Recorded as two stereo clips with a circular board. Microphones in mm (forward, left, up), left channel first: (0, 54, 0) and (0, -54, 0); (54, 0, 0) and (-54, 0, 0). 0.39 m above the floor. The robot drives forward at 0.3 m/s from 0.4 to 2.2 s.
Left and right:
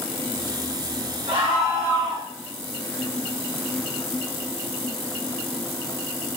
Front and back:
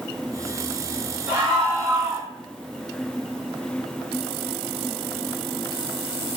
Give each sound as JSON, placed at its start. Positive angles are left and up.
{"t": 1.3, "sound": "a scream", "azimuth_deg": -120, "distance_m": 1.4}